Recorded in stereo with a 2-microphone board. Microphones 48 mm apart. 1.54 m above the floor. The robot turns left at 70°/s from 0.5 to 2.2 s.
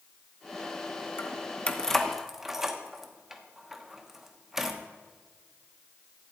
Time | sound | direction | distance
1.2 | keys jangling | 50° left (ahead or behind) | 0.9 m